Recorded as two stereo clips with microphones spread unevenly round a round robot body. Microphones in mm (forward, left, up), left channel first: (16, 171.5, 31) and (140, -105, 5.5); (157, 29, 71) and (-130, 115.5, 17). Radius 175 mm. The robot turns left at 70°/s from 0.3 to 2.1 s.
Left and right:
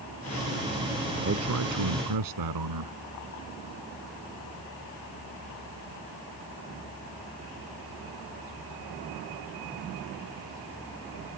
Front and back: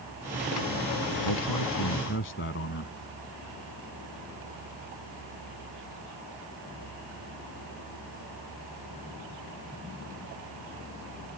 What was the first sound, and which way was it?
A man speaking, 10° right.